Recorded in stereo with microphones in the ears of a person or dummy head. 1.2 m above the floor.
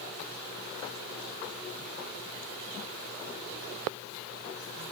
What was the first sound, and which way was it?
Only background noise.